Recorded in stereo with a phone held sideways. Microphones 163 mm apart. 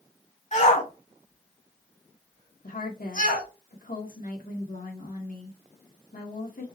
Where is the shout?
50° left (ahead or behind), 3 m; by 3.5 s 80° left, 3.5 m.